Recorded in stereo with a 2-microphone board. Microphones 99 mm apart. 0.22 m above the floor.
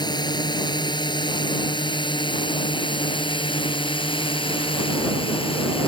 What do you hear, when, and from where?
0.0 s a drone: 45° left (ahead or behind); by 5.9 s 60° left (ahead or behind)